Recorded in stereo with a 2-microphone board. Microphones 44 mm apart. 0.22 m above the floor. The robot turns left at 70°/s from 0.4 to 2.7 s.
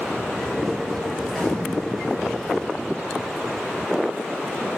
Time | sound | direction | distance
1.2 | a gunshot | 165° right | 3.5 m